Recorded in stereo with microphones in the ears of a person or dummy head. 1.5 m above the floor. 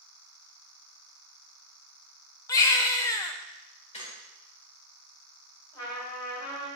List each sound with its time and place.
2.5 s a baby crying: 15° left (ahead or behind), 0.6 m
3.9 s a squeak: 35° left (ahead or behind), 1.6 m
5.7 s a trumpet: 25° left (ahead or behind), 3.5 m